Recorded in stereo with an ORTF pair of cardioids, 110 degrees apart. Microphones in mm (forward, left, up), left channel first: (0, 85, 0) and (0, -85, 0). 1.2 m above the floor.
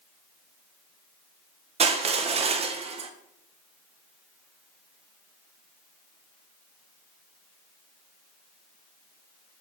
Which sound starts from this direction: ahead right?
Crushing, at 1.8 s.